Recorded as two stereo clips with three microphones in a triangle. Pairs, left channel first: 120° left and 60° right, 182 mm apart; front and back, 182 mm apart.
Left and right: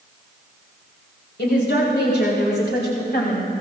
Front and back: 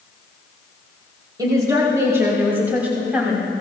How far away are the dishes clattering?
No dishes clattering in this recording.